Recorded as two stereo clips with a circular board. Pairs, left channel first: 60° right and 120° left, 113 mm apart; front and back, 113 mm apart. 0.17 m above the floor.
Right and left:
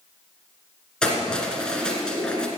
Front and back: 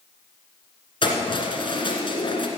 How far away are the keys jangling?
About 1.7 m.